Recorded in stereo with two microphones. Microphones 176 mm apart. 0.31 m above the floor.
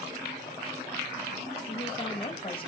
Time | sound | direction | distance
1.7 | a woman speaking | 30° left (ahead or behind) | 1.7 m